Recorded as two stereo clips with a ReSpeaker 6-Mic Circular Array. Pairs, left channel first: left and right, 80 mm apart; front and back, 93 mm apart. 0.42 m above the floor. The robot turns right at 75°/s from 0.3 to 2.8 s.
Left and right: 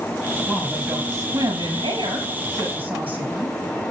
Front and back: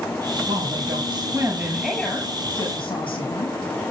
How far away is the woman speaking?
About 7.5 m.